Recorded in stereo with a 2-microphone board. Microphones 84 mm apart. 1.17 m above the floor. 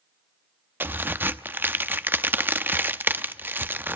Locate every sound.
0.8 s a crack: 25° right (ahead or behind), 0.6 m